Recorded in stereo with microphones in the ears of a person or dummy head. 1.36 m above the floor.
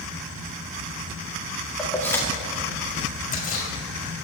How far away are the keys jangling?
About 1.7 m.